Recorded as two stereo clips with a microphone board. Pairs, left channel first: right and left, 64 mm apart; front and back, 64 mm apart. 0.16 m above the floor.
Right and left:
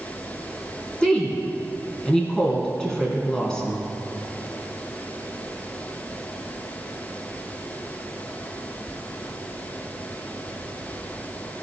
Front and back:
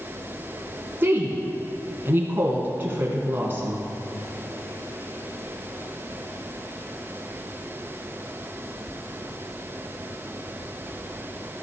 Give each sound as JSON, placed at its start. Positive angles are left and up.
{"t": 1.0, "sound": "a woman speaking", "azimuth_deg": -160, "distance_m": 1.7}